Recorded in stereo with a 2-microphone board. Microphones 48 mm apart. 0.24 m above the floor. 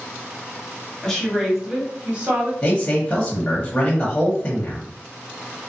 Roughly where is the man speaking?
Left.